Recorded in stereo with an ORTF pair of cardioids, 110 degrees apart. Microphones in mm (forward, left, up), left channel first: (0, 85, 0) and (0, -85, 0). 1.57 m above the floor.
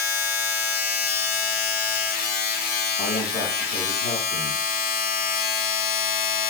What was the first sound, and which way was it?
A machine running, 70° left.